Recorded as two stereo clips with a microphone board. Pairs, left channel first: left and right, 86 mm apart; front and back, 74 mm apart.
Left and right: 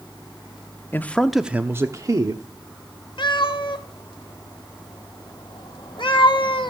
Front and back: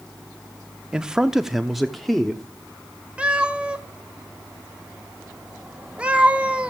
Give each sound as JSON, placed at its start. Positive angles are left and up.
{"t": 0.9, "sound": "a man speaking", "azimuth_deg": 115, "distance_m": 0.7}
{"t": 3.2, "sound": "a cat meowing", "azimuth_deg": 105, "distance_m": 1.1}